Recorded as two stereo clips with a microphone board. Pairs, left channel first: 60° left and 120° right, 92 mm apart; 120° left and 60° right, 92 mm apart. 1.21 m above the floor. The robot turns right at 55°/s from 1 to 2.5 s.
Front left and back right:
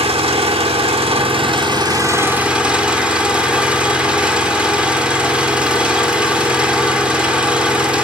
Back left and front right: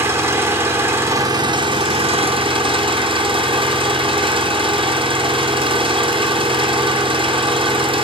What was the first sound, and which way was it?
An engine running, 125° right.